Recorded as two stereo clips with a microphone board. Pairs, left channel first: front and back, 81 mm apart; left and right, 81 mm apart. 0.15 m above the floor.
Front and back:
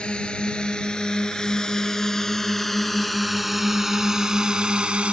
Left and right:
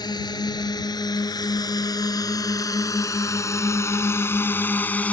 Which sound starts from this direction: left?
A drone, at 0.0 s.